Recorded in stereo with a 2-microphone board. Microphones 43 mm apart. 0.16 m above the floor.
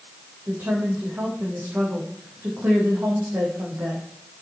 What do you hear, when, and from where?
0.5 s a woman speaking: 55° right (ahead or behind), 7 m